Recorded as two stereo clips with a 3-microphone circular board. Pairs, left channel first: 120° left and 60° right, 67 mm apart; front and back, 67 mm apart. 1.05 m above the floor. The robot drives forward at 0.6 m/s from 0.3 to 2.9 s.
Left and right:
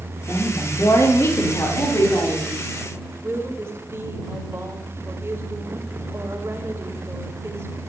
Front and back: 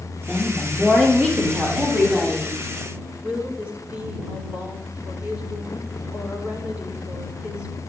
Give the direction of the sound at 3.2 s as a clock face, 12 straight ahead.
4 o'clock.